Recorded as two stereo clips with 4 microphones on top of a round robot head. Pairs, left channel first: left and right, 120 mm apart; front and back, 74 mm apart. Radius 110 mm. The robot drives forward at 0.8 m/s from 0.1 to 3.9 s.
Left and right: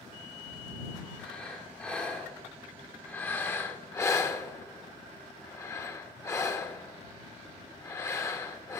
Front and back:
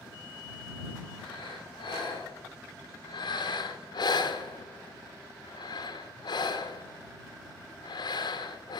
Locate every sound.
1.2 s breathing: 10° left, 3.5 m; by 8.8 s 25° left, 1.3 m